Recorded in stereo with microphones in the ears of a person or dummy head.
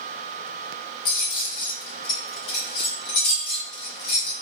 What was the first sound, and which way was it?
Keys jangling, 60° left (ahead or behind).